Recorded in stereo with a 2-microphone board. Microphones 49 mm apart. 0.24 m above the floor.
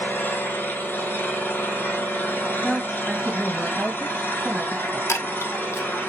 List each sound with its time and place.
0.0 s an engine running: 45° left (ahead or behind), 2.5 m
2.6 s a woman speaking: 10° left (ahead or behind), 1.8 m
5.1 s a chime: 70° left (ahead or behind), 0.6 m